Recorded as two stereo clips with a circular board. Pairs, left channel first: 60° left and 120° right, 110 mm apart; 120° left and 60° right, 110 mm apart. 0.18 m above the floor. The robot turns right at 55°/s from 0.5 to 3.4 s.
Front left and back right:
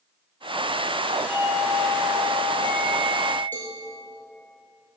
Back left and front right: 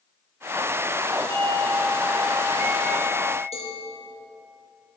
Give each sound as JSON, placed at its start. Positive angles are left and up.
{"t": 1.3, "sound": "a doorbell", "azimuth_deg": -55, "distance_m": 2.5}
{"t": 3.5, "sound": "a cowbell", "azimuth_deg": 130, "distance_m": 2.5}